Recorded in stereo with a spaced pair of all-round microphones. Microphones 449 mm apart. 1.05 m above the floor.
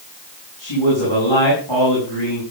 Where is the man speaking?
85° left, 8.5 m.